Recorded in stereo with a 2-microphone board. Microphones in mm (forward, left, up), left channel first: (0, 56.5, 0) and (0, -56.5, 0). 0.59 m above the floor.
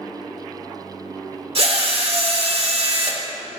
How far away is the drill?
About 1.5 m.